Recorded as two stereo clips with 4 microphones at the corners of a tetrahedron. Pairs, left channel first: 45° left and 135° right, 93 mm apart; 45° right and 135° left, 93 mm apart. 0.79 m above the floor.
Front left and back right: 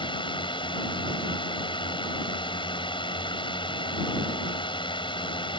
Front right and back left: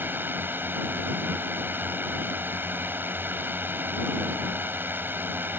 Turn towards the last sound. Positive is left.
turn(degrees=65)